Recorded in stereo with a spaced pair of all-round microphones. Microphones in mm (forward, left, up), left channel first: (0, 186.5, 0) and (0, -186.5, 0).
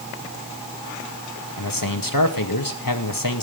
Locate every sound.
1.6 s a man speaking: 60° left (ahead or behind), 2 m